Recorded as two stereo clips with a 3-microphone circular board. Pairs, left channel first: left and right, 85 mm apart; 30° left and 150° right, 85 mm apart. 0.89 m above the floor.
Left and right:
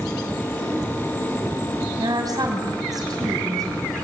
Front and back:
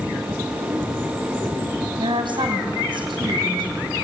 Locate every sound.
2.0 s a woman speaking: 130° right, 5 m